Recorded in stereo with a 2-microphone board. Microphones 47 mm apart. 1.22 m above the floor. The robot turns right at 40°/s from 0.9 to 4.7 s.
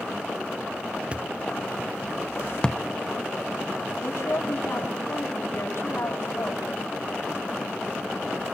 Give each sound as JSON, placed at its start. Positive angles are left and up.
{"t": 1.1, "sound": "a thud", "side_deg": -20, "distance_m": 0.6}
{"t": 4.0, "sound": "a woman speaking", "side_deg": 80, "distance_m": 7.5}